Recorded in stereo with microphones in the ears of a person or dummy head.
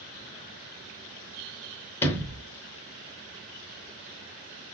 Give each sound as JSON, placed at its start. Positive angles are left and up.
{"t": 2.0, "sound": "a sliding door", "side_deg": 10, "distance_m": 0.8}